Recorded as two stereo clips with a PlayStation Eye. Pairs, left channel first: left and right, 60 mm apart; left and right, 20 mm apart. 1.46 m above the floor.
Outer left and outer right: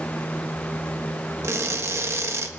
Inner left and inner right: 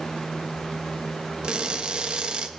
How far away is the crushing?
About 1.3 m.